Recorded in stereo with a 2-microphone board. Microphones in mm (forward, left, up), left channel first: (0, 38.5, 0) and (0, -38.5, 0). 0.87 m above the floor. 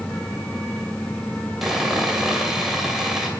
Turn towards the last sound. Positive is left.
turn(degrees=-5)  # may be behind; listen again after turning